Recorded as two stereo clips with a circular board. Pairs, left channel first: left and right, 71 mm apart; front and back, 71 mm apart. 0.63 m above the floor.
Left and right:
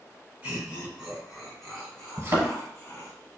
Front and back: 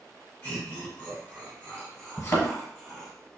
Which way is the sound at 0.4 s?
35° right.